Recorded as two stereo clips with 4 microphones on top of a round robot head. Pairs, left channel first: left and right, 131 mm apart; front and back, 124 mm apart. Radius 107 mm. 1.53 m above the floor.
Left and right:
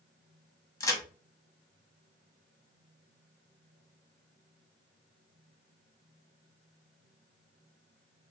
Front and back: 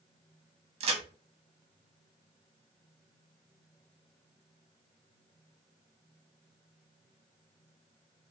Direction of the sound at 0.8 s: 150° left.